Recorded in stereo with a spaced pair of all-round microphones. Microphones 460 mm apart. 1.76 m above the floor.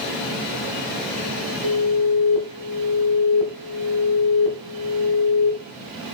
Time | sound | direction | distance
1.6 | an alarm | 80° left | 4 m